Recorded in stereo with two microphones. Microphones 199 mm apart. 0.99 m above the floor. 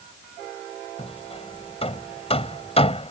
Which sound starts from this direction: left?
Hammering, at 1.0 s.